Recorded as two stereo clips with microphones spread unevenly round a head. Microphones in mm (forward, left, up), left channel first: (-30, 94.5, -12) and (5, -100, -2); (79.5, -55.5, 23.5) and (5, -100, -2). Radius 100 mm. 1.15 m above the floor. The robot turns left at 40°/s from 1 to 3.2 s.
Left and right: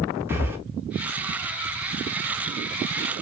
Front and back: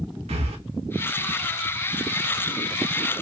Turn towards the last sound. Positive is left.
turn(degrees=115)